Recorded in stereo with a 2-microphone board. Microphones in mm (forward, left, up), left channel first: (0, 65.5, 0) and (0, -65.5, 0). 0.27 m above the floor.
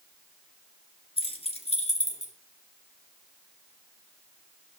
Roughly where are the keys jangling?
Left.